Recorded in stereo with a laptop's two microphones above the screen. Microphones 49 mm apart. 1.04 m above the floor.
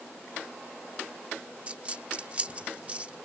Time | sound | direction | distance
1.7 | a dropped coin | 30° right (ahead or behind) | ?